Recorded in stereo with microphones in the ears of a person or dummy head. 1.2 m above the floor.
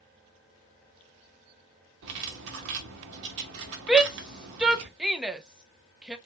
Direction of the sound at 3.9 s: 5° right (ahead or behind).